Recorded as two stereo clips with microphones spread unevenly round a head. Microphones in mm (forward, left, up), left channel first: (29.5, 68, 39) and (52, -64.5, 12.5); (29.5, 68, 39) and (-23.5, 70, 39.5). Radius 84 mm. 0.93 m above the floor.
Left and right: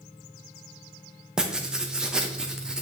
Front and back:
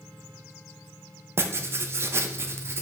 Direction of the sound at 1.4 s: 155° right.